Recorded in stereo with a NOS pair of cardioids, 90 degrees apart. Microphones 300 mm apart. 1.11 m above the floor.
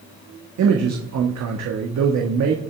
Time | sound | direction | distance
0.6 | a man speaking | 65° right | 1.6 m